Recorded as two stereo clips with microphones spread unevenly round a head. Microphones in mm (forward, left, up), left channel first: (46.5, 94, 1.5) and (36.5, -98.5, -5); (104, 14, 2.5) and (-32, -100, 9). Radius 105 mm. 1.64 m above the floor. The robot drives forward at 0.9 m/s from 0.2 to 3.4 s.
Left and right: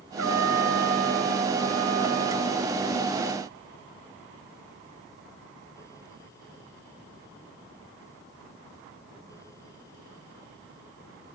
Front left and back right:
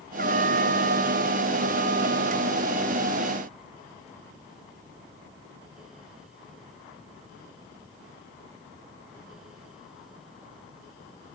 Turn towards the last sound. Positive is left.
turn(degrees=-120)